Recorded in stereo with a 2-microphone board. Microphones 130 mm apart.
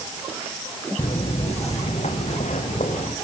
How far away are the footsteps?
About 2 m.